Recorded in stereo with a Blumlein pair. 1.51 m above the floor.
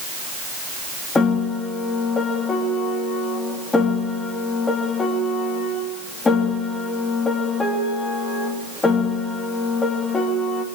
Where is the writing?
No writing in this recording.